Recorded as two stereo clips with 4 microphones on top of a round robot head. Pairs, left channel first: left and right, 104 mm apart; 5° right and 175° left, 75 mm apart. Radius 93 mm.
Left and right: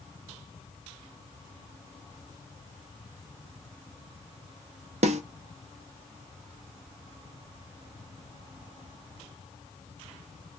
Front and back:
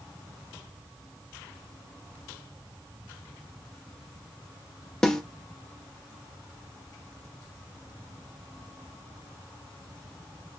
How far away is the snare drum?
About 0.6 m.